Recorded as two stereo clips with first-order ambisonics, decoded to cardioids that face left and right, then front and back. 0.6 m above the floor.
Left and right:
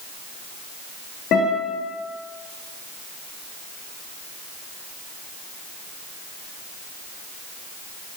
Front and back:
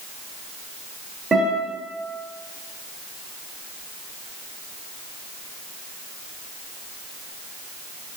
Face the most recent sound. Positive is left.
turn(degrees=100)